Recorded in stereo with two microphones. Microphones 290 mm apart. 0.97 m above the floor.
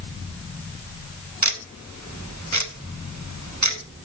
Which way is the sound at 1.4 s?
65° right (ahead or behind).